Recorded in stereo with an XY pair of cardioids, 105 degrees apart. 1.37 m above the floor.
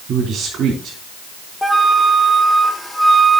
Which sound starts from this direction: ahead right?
A man speaking, at 0.1 s.